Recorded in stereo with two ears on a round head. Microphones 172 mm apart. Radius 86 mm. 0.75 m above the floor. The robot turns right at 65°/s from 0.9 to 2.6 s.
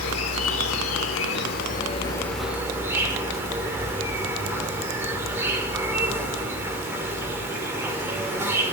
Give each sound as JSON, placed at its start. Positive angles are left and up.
{"t": 0.0, "sound": "an insect", "azimuth_deg": 80, "distance_m": 1.1}